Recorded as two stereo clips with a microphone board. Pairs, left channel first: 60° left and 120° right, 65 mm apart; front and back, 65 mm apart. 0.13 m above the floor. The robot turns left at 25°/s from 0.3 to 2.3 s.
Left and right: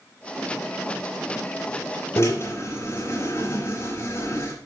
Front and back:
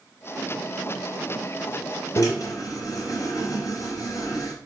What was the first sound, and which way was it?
A drill, 20° left.